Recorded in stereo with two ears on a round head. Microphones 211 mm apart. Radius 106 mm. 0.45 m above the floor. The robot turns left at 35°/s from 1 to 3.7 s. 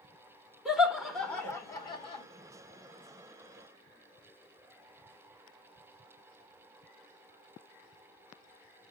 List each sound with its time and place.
0.7 s laughter: centre (ahead or behind), 1.2 m; by 2.2 s 25° left (ahead or behind), 1.2 m